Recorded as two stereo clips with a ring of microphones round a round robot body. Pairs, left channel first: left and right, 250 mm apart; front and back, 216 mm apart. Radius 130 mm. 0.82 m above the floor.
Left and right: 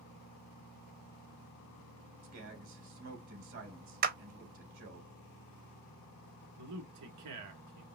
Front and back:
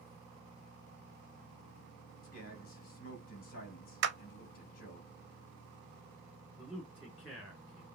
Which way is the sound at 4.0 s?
140° right.